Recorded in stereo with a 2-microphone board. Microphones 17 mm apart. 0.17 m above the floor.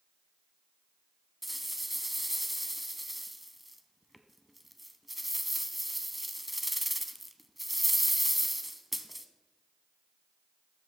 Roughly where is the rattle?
Centre.